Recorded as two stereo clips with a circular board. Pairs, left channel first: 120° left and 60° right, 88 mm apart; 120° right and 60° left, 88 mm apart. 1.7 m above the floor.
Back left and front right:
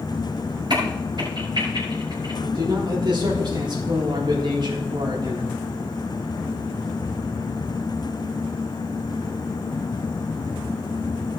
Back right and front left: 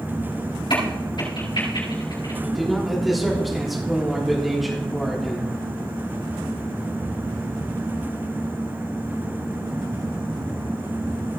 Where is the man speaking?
30° right, 3.5 m.